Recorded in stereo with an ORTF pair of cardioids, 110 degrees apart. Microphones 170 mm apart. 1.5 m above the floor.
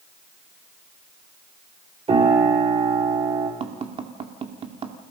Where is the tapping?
35° right, 2.5 m.